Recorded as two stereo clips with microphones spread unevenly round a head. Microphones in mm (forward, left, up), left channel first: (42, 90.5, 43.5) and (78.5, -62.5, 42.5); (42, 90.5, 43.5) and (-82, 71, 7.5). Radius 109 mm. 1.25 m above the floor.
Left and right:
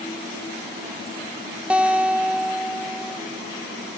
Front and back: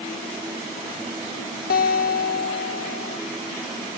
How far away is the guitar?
About 1.4 m.